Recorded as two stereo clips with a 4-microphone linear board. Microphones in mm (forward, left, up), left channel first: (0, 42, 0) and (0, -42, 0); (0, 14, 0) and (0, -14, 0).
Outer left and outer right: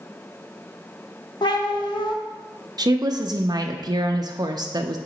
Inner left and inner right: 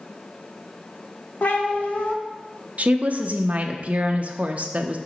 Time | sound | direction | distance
1.4 | a cat meowing | 65° left (ahead or behind) | 0.8 m
2.8 | a woman speaking | 50° right (ahead or behind) | 0.5 m